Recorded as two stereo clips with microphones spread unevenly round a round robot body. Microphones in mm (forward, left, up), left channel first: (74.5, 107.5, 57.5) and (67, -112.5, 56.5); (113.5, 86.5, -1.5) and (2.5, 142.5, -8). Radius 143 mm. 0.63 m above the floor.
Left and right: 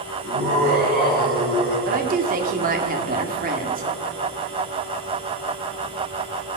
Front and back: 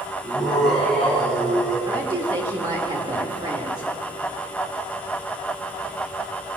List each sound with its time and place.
0.2 s laughter: 160° right, 6.5 m; by 1.8 s 145° right, 6 m
1.9 s a woman speaking: 140° right, 1.4 m